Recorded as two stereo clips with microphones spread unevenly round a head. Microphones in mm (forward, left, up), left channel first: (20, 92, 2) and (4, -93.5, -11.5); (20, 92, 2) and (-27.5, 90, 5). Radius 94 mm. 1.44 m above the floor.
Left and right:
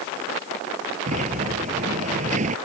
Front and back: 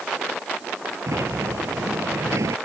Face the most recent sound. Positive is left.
turn(degrees=-150)